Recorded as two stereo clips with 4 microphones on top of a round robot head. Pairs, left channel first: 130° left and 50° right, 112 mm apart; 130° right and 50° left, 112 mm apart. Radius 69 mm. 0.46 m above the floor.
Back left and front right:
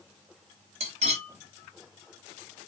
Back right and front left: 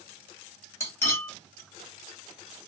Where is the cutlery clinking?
65° right, 1.8 m.